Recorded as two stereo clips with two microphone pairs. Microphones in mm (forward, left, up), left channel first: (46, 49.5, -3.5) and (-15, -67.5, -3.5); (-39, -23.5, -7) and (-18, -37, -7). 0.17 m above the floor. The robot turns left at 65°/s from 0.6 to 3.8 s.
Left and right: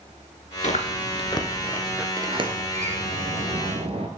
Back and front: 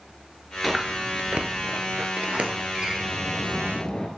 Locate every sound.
0.6 s chewing: 55° left, 0.7 m; by 2.1 s 40° right, 0.7 m
2.2 s a sliding door: 50° right, 1.1 m; by 4.1 s 160° right, 1.1 m